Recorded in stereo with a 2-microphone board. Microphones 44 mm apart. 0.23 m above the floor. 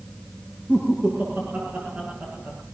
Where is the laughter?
35° right (ahead or behind), 8.5 m; by 2.6 s 50° right (ahead or behind), 8 m.